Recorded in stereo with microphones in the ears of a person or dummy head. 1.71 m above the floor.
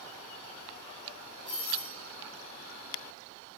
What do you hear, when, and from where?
1.4 s a doorbell: 10° right (ahead or behind), 1.5 m